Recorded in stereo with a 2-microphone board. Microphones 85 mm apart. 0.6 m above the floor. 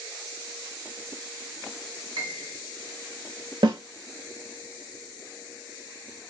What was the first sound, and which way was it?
A piano, 70° right (ahead or behind).